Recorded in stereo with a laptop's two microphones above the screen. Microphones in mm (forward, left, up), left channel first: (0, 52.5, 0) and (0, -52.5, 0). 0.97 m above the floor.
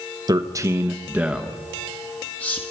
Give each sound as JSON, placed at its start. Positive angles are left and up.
{"t": 0.3, "sound": "a man speaking", "side_deg": -40, "distance_m": 1.2}